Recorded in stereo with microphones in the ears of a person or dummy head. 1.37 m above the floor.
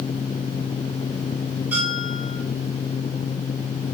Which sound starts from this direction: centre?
A bell, at 1.7 s.